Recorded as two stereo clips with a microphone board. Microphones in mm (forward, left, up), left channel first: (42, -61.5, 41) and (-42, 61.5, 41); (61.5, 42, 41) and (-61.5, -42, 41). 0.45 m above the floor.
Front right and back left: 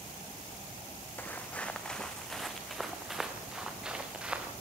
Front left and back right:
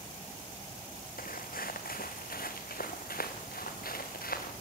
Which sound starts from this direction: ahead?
Footsteps, at 1.2 s.